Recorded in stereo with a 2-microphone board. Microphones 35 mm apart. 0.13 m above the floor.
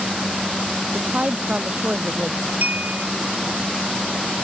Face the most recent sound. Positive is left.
turn(degrees=-55)  # may be behind; listen again after turning